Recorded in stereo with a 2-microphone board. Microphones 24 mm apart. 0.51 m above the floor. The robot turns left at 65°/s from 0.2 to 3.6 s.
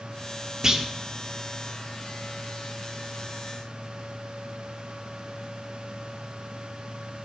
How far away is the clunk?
About 1.1 m.